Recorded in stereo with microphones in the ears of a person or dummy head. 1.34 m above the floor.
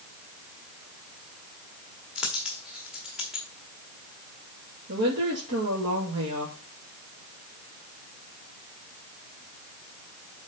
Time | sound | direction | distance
2.1 | a dropped coin | centre (ahead or behind) | 1.4 m
4.9 | a woman speaking | 60° right (ahead or behind) | 2.5 m